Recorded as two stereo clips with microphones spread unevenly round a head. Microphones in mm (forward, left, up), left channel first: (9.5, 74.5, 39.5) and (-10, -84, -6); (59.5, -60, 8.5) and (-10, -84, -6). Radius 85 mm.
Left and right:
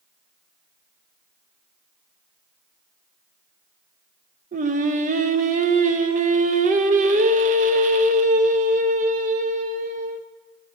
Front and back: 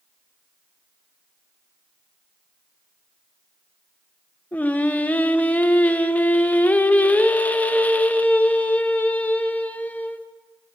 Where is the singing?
45° right, 0.6 m.